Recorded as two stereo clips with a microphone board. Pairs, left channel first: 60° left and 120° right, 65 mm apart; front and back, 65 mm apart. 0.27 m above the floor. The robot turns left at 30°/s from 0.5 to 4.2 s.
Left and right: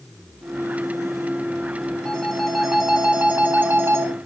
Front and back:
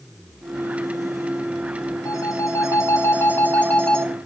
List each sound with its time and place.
2.0 s a phone ringing: 15° right, 2.5 m; by 4.1 s 80° right, 2.5 m